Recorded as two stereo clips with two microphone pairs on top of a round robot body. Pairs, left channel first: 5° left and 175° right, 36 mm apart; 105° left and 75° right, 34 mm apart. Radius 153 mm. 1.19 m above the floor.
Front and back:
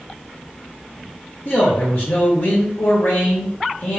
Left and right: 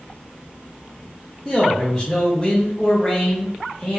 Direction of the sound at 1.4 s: 15° left.